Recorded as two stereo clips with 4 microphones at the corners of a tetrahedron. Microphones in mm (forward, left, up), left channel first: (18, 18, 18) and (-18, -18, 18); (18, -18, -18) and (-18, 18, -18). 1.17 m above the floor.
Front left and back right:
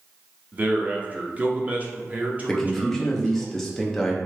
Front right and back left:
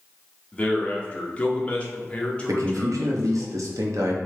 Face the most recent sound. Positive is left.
turn(degrees=130)